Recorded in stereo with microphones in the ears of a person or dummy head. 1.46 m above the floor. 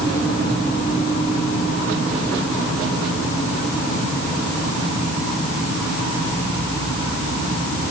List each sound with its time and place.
Only background noise.